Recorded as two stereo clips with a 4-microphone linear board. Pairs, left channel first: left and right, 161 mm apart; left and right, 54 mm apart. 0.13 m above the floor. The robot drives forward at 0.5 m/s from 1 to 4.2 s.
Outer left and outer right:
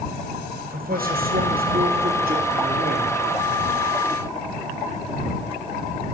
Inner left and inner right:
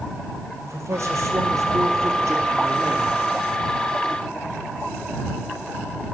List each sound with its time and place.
0.6 s a man speaking: 65° right (ahead or behind), 3 m